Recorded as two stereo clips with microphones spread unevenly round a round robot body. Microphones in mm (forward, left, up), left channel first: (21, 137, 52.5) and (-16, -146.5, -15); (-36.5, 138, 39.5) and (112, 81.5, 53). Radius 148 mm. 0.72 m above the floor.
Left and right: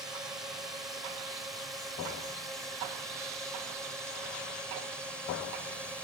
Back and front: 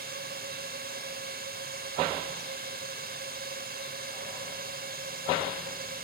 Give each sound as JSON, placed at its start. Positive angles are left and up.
{"t": 0.0, "sound": "a drone", "azimuth_deg": -15}